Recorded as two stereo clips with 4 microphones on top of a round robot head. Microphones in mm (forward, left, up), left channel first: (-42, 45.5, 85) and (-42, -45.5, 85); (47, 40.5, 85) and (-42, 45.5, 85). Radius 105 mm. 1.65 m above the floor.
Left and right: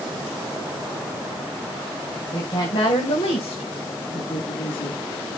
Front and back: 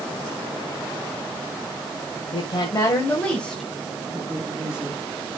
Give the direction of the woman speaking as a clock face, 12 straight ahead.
11 o'clock.